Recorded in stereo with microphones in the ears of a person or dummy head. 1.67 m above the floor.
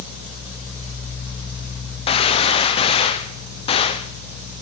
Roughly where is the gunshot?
Left.